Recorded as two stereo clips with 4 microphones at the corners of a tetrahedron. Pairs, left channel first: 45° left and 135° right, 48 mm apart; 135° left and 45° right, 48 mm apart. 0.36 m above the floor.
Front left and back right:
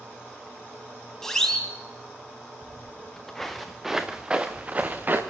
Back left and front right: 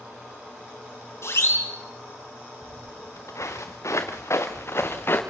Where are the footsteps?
115° left, 3.5 m; by 5.2 s 175° left, 3 m.